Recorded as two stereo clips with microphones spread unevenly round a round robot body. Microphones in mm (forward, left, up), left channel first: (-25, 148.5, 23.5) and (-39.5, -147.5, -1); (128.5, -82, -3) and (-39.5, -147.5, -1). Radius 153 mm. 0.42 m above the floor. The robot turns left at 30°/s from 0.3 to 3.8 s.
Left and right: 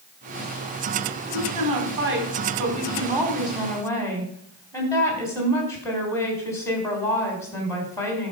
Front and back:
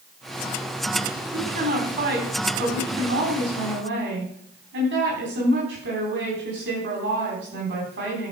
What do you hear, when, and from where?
1.3 s a woman speaking: 115° right, 3.5 m; by 8.3 s 170° left, 3.5 m